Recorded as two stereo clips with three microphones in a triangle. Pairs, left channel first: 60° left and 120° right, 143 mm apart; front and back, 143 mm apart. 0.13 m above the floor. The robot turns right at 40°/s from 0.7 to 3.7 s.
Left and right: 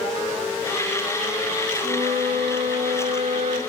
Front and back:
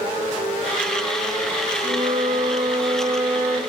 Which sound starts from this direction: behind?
A flute, at 1.8 s.